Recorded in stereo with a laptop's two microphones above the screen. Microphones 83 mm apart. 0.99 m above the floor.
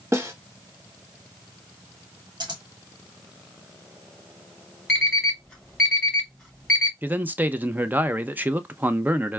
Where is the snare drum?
35° right (ahead or behind), 0.9 m.